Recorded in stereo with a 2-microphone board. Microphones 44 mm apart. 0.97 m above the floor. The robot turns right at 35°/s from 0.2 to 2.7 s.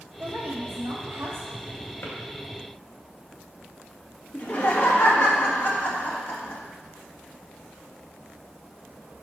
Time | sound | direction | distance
0.2 | a woman speaking | 130° right | 2 m
2.0 | a drawer | 70° left (ahead or behind) | 2 m
4.3 | laughter | 45° left (ahead or behind) | 1.7 m